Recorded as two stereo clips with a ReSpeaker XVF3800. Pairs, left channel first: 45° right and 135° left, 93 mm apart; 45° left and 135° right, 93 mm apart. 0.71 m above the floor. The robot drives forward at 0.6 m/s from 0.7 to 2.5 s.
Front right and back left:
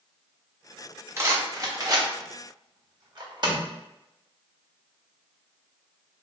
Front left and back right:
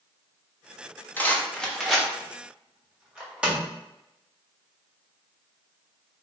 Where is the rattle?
100° left, 1.0 m; by 3.7 s 150° left, 1.4 m.